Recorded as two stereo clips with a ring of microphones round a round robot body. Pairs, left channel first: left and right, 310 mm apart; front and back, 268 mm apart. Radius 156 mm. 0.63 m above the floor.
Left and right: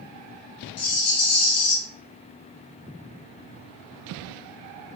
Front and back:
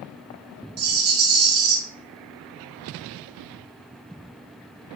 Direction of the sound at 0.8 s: 140° left.